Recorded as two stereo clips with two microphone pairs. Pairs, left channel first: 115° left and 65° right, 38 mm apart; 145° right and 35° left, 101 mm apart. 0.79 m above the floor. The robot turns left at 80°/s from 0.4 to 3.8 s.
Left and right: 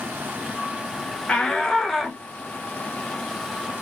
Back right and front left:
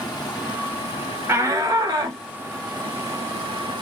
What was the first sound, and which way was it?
Running water, 95° right.